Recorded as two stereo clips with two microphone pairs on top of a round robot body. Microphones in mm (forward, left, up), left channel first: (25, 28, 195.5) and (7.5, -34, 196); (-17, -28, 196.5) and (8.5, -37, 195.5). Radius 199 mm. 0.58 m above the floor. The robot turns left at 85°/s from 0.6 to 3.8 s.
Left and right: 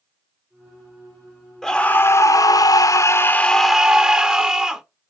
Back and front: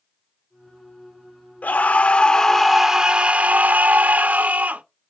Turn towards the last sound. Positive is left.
turn(degrees=-30)